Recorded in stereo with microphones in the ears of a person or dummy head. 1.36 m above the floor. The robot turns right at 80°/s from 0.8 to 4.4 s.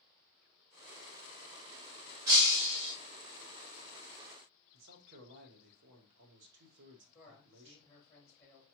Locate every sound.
2.3 s breaking glass: 15° right (ahead or behind), 1.0 m; by 2.9 s 25° right (ahead or behind), 1.0 m
4.7 s a man speaking: 65° right (ahead or behind), 1.1 m
7.1 s a man speaking: 10° left (ahead or behind), 2.5 m